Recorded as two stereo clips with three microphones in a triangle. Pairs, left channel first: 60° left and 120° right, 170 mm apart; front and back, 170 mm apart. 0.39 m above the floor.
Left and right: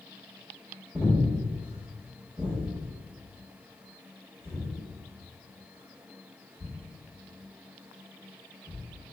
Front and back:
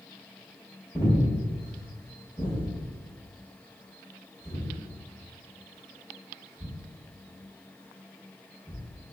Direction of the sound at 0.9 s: 45° right.